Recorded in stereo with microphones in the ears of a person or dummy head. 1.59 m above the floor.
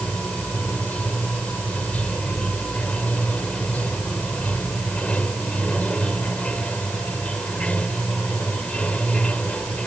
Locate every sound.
0.0 s running water: 5° left (ahead or behind)